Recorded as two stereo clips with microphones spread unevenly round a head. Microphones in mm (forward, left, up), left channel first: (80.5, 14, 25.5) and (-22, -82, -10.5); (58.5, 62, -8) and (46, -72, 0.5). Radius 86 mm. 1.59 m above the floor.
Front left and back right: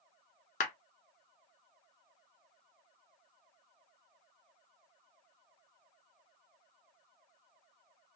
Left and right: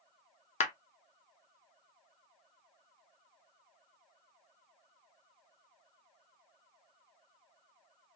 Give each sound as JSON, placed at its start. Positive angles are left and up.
{"t": 0.6, "sound": "a clap", "azimuth_deg": 55, "distance_m": 0.8}